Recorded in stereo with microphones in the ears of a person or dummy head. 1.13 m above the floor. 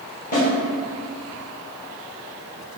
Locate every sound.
0.3 s a snare drum: 35° left (ahead or behind), 1.2 m